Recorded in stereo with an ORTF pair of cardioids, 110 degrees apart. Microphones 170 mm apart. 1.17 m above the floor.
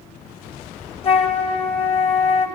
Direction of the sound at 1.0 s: 35° left.